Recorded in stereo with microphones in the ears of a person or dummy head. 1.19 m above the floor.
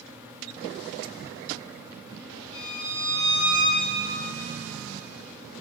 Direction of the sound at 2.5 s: 70° left (ahead or behind).